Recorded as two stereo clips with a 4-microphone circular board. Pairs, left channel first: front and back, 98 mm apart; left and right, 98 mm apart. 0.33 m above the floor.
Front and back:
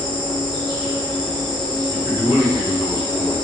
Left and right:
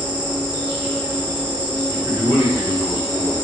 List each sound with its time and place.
0.0 s an insect: 165° right, 1.8 m
1.9 s a man speaking: 140° left, 1.4 m